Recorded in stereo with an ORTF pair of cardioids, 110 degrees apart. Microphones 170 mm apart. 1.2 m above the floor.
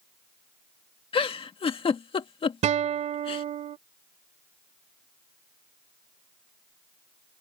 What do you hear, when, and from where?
1.1 s a giggle: 35° left
2.6 s a guitar: 50° right